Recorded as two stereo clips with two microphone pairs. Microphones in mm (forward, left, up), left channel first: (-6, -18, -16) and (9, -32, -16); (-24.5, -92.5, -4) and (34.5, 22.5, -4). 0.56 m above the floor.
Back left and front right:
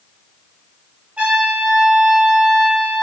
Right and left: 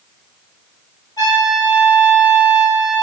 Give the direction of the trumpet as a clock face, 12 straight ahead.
2 o'clock.